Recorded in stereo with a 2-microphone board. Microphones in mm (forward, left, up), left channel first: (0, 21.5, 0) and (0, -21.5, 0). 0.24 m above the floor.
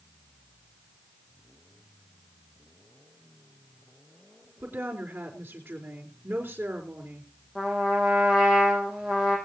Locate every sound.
4.6 s a woman speaking: 65° right (ahead or behind), 3.5 m
7.5 s a trumpet: 10° right (ahead or behind), 5.5 m